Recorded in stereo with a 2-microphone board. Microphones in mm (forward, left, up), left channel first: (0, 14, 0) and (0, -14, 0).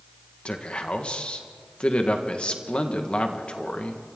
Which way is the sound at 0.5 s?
45° left (ahead or behind).